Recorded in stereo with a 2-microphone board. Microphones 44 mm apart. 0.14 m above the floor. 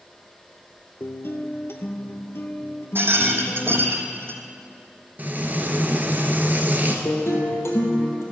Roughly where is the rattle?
Right.